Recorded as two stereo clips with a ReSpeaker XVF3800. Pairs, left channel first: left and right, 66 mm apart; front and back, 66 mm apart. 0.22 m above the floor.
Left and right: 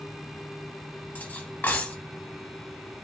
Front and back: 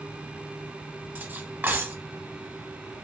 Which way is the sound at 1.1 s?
140° left.